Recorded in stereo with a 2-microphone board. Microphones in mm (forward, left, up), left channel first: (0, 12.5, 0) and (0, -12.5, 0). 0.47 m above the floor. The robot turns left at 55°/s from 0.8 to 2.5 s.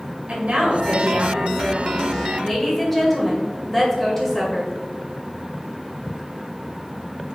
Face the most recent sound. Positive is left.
turn(degrees=165)